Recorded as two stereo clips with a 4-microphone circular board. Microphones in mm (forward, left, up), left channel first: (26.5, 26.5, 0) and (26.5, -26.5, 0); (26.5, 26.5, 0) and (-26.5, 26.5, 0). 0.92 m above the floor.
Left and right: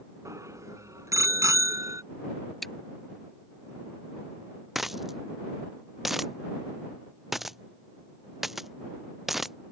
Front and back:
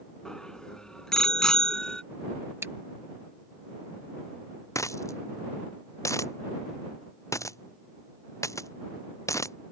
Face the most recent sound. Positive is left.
turn(degrees=-5)